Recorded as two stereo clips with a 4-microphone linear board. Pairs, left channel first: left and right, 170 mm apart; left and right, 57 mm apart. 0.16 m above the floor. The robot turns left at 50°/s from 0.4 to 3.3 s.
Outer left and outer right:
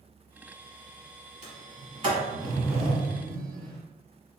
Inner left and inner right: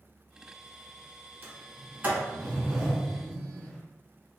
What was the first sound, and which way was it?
A sliding door, 40° right (ahead or behind).